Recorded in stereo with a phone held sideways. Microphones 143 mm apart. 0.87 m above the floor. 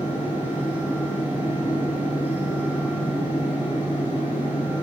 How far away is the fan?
About 2 m.